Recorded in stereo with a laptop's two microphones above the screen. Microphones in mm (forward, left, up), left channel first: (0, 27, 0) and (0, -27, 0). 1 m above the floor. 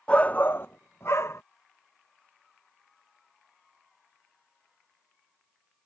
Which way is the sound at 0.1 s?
20° left (ahead or behind).